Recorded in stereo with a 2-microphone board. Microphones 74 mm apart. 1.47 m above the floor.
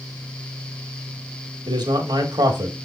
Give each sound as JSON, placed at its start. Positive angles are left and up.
{"t": 1.7, "sound": "a man speaking", "side_deg": -80, "distance_m": 1.8}